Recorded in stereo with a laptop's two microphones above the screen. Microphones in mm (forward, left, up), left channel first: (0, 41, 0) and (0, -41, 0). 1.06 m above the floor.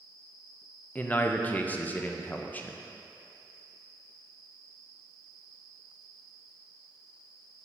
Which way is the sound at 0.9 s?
20° left (ahead or behind).